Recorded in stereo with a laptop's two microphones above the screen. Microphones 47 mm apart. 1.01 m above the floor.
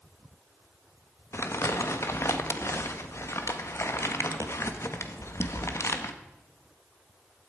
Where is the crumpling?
70° left (ahead or behind), 1.3 m.